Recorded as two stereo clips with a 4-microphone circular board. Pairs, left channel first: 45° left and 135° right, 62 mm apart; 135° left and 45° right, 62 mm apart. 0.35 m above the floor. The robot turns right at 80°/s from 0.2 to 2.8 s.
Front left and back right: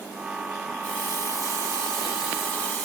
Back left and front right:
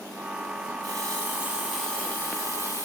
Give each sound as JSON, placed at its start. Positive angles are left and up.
{"t": 0.8, "sound": "a running tap", "azimuth_deg": -30, "distance_m": 7.0}